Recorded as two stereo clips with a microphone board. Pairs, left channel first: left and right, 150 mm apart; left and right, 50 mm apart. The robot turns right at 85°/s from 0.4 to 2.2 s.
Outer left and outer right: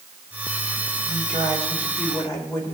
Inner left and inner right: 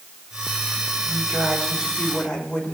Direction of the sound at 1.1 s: 75° right.